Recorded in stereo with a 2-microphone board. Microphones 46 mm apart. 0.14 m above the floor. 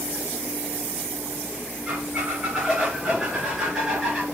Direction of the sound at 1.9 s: 10° right (ahead or behind).